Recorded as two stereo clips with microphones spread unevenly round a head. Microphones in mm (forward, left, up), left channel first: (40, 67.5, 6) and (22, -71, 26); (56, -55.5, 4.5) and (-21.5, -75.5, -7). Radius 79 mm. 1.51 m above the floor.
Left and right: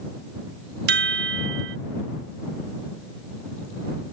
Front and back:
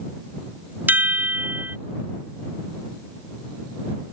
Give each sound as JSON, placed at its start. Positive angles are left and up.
{"t": 0.9, "sound": "a chime", "azimuth_deg": -95}